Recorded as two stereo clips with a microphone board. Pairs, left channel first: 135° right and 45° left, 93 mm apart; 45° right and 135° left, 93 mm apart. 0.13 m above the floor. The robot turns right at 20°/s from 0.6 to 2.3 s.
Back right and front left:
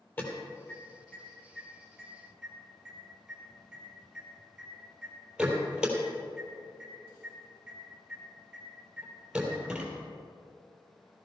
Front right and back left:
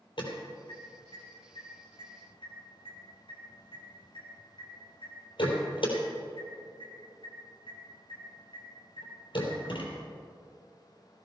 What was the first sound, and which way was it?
An alarm, 70° right.